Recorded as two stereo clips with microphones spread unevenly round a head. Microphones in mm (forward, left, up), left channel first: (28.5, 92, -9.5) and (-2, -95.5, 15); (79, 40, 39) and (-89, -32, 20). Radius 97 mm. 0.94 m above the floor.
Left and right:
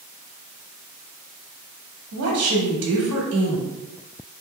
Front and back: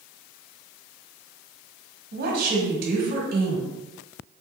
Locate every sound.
2.1 s a woman speaking: 115° right, 1.4 m